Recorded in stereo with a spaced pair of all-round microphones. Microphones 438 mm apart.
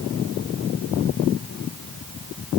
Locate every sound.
Only background noise.